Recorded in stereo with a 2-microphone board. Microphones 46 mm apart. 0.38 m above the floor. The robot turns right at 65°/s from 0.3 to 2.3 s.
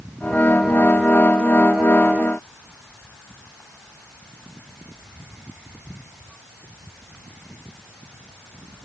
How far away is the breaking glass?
No breaking glass in this recording.